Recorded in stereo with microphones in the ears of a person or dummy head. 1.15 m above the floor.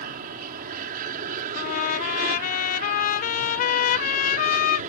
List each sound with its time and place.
0.0 s an aircraft: 50° right (ahead or behind); by 4.9 s 45° right (ahead or behind)
1.5 s a trumpet: 50° left (ahead or behind)